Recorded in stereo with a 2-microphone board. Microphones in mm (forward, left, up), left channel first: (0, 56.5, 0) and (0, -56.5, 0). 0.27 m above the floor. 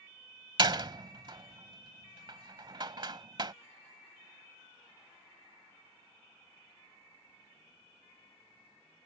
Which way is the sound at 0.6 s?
40° right (ahead or behind).